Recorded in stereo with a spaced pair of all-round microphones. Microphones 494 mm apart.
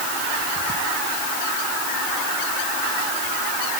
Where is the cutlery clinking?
No cutlery clinking in this recording.